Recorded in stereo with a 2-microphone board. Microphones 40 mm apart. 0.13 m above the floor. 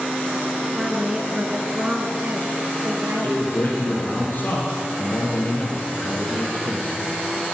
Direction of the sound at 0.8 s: 10° right (ahead or behind).